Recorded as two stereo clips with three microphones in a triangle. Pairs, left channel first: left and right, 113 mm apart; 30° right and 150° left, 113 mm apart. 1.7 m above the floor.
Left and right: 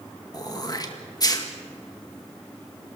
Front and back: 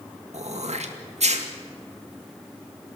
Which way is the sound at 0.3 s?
145° left.